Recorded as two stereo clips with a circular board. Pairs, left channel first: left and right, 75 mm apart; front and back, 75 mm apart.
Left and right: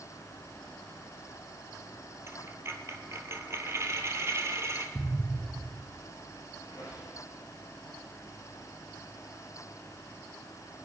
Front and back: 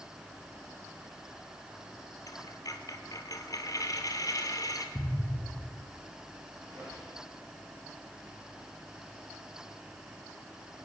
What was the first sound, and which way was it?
A dropped coin, 40° right.